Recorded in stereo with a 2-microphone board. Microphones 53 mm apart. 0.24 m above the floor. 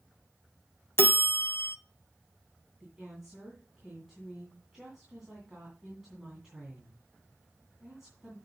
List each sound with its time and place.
1.0 s a bell: 50° left (ahead or behind), 0.6 m
2.8 s a woman speaking: 10° right (ahead or behind), 2.5 m